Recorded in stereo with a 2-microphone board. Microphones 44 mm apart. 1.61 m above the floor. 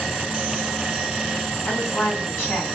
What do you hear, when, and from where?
1.7 s a woman speaking: 75° left (ahead or behind), 2 m